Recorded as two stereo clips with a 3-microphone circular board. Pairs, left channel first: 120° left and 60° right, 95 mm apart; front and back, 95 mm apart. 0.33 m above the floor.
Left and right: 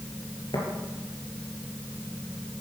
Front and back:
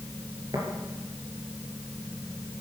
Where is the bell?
I don't hear a bell.